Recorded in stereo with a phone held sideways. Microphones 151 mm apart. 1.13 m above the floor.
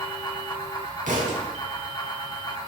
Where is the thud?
65° right (ahead or behind), 4 m.